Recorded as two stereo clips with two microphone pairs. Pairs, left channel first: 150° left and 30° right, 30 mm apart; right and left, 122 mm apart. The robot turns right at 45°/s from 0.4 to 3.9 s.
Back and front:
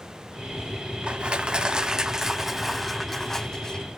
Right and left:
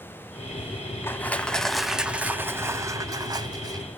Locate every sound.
1.0 s crushing: 25° right, 0.5 m; by 3.9 s 100° left, 0.5 m